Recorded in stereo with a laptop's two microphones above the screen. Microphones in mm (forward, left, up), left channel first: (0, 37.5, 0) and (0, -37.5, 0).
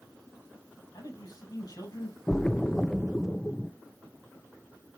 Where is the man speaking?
55° left (ahead or behind), 7 m.